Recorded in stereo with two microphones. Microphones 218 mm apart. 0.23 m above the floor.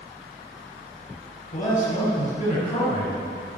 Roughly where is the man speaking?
Left.